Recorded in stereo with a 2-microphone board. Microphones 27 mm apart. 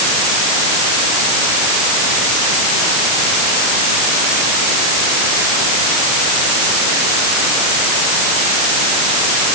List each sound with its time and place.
Only background noise.